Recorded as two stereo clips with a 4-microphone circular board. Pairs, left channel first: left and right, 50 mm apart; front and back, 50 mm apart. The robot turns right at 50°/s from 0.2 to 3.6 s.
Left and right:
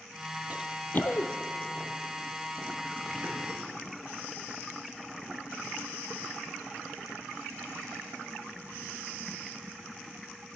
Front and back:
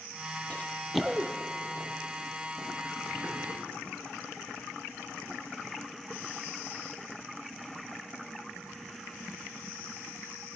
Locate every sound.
0.5 s running footsteps: 55° right, 0.7 m; by 3.4 s 120° right, 4 m